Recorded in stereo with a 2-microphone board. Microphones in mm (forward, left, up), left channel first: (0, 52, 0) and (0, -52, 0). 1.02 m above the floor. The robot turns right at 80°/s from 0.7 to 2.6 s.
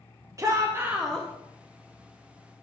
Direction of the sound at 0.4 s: 30° right.